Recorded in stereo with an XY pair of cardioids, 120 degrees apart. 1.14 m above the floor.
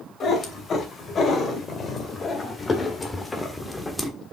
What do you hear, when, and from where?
0.2 s a cat meowing: 40° left, 3 m; by 4.1 s 5° left, 1.5 m